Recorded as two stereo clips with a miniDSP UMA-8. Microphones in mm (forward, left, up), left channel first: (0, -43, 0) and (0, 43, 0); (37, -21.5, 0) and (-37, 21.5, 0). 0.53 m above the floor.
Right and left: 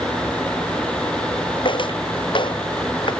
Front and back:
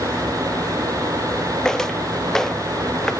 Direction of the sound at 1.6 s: 115° right.